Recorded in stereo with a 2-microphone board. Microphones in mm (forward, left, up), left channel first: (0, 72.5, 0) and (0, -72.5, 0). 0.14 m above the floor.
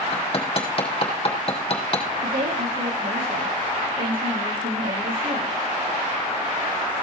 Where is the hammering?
40° left (ahead or behind), 3 m.